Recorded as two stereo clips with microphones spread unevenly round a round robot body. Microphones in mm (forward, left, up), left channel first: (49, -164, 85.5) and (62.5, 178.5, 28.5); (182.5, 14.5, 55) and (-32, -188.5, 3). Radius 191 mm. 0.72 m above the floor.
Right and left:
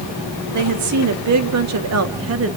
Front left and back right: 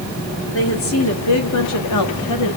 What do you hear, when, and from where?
0.5 s a woman speaking: 100° left, 2 m; by 2.6 s 55° left, 1.7 m